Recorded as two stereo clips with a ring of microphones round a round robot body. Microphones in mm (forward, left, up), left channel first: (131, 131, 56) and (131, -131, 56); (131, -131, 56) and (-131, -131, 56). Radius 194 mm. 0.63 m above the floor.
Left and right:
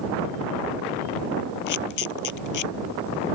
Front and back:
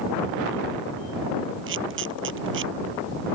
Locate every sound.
1.7 s a camera shutter: 120° left